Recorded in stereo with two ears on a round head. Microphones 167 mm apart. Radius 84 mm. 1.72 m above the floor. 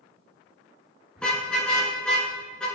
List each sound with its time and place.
1.2 s a car horn: 5° left (ahead or behind), 8.5 m